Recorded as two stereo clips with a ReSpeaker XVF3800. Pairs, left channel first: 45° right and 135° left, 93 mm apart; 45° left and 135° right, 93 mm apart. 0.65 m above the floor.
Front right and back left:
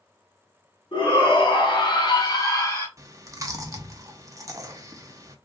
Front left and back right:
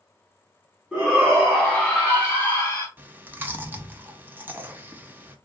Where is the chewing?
165° left, 0.6 m.